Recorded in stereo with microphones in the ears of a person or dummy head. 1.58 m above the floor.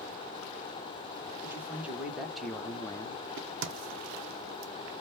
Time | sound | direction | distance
1.4 | a man speaking | 10° right (ahead or behind) | 1.7 m
3.4 | a crack | 60° right (ahead or behind) | 0.6 m